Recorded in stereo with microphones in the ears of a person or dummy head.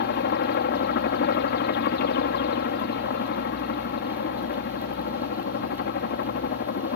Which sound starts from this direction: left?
A helicopter, at 0.0 s.